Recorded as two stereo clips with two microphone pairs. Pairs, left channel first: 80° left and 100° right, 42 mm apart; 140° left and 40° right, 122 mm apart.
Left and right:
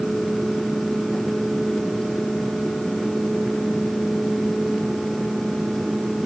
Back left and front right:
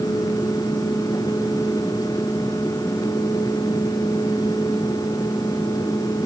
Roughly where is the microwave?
I don't hear a microwave.